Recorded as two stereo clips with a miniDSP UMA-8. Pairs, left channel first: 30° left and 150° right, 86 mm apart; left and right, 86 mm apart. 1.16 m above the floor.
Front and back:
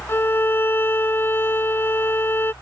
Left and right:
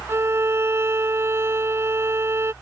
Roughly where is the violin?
Ahead right.